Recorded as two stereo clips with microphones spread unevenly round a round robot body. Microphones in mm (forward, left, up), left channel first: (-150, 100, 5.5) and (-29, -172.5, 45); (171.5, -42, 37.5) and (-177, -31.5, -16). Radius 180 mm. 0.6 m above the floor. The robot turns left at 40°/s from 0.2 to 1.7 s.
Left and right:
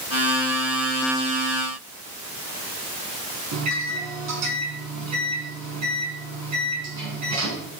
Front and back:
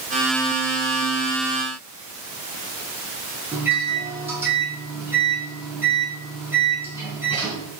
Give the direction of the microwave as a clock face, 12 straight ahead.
3 o'clock.